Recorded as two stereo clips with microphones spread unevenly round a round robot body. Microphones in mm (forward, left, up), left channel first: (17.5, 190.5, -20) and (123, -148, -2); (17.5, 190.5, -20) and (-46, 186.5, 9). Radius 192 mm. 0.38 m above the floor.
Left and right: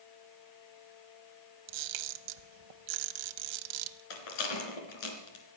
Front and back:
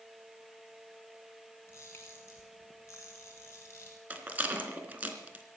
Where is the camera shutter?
65° right, 0.9 m.